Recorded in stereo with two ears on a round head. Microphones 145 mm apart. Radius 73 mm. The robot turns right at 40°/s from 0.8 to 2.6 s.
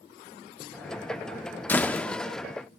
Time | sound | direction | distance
1.7 | a door slam | 10° left (ahead or behind) | 0.5 m